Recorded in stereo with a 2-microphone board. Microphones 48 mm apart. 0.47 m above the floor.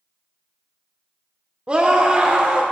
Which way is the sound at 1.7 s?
25° right (ahead or behind).